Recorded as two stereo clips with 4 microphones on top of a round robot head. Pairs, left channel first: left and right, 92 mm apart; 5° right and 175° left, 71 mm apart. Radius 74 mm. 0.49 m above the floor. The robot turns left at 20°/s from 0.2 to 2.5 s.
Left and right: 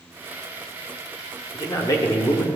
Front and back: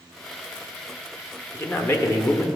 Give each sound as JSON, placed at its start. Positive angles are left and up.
{"t": 1.5, "sound": "a man speaking", "azimuth_deg": 50, "distance_m": 1.1}